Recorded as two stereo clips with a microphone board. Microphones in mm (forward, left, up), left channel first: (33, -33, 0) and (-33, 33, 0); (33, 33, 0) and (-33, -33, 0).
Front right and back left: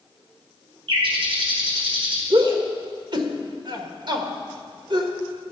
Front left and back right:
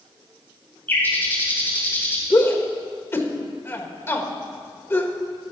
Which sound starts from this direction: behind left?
A bird, at 0.9 s.